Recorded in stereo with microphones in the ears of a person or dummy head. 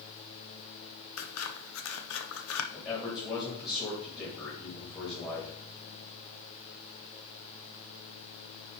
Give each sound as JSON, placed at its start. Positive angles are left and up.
{"t": 1.2, "sound": "scissors", "side_deg": 80, "distance_m": 0.8}
{"t": 2.7, "sound": "a man speaking", "side_deg": 25, "distance_m": 3.0}